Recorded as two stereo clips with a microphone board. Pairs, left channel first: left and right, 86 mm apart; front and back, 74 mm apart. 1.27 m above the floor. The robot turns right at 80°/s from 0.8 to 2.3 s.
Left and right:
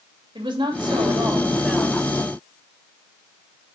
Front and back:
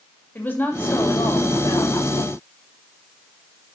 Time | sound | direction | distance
0.3 | a woman speaking | 65° right | 2.5 m